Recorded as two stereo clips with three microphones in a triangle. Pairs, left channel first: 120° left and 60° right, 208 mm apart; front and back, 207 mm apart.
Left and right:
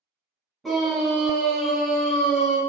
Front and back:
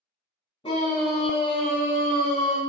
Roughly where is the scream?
Ahead left.